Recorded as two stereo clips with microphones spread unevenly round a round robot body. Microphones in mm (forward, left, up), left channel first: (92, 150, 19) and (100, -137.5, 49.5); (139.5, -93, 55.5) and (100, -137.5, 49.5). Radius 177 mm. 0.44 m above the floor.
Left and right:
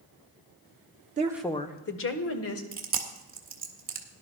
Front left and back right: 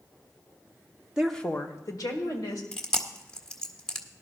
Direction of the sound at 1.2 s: 110° right.